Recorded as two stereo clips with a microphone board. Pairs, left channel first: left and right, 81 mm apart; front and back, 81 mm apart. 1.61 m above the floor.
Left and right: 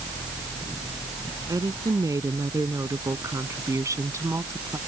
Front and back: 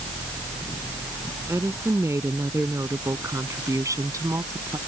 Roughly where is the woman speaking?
Behind right.